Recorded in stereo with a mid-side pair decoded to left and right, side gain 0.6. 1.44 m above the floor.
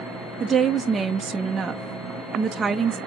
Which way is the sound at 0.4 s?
30° right.